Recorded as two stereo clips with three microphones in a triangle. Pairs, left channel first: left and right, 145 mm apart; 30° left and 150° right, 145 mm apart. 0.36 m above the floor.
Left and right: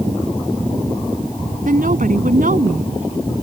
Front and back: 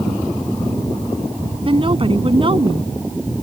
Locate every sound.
1.6 s a woman speaking: 100° right